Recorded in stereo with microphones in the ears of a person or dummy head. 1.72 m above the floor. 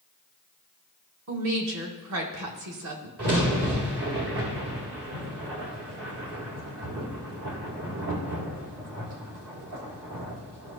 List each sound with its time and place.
1.3 s a woman speaking: 75° right (ahead or behind), 1.9 m
3.2 s a crack: 55° right (ahead or behind), 2.0 m